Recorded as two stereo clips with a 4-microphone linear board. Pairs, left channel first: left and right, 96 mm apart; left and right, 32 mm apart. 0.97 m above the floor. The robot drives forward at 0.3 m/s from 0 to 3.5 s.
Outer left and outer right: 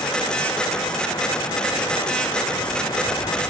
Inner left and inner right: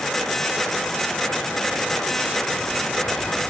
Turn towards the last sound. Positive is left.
No sound to turn to.